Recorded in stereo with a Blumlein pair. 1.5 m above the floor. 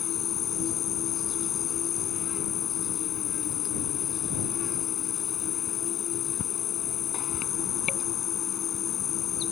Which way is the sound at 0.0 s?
25° left.